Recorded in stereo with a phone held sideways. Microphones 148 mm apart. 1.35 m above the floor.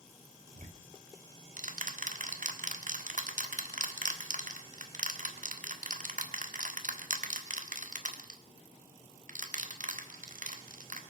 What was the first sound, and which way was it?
Ticking, 60° right (ahead or behind).